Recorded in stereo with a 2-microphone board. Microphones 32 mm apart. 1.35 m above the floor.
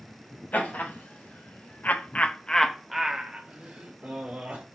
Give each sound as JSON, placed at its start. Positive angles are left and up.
{"t": 0.5, "sound": "laughter", "side_deg": 70, "distance_m": 1.3}